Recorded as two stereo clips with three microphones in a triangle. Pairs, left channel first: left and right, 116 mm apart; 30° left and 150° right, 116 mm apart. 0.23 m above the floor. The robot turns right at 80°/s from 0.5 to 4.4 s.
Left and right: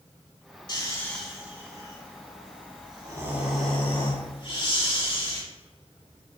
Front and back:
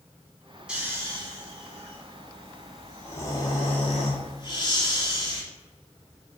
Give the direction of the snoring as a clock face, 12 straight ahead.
8 o'clock.